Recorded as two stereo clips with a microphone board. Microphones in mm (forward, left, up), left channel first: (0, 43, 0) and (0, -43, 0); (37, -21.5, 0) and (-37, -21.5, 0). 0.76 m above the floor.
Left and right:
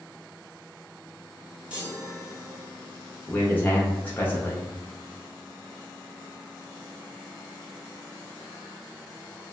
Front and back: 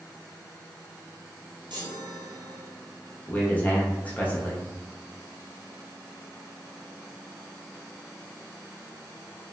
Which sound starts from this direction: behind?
A chime, at 1.7 s.